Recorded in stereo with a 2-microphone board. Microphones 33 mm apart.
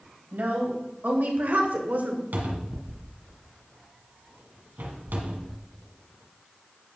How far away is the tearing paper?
No tearing paper in this recording.